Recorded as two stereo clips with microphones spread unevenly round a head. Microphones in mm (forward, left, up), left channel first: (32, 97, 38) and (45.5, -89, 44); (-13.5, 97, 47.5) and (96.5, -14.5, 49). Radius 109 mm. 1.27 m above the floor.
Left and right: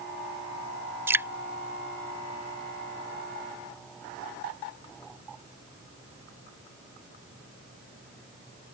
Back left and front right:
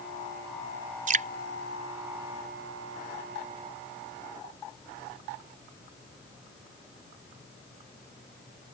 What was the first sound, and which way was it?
Dripping, 10° right.